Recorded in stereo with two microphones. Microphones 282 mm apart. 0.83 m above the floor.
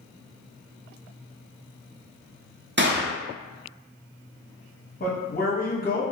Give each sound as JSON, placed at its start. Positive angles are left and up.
{"t": 2.8, "sound": "a gunshot", "side_deg": -40, "distance_m": 0.5}
{"t": 5.0, "sound": "a man speaking", "side_deg": 35, "distance_m": 0.9}